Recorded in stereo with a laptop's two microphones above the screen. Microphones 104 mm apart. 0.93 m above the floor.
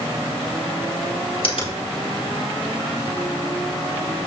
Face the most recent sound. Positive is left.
turn(degrees=60)  # may be behind; listen again after turning